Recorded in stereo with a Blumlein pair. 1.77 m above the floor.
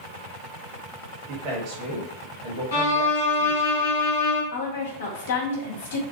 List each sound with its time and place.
1.3 s a man speaking: 40° right, 1.0 m
2.7 s a violin: 65° left, 1.0 m
4.5 s a woman speaking: 55° left, 0.9 m